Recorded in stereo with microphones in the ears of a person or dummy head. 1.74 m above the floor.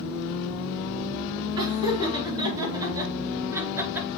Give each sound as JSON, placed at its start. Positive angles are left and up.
{"t": 1.6, "sound": "laughter", "side_deg": -25, "distance_m": 3.5}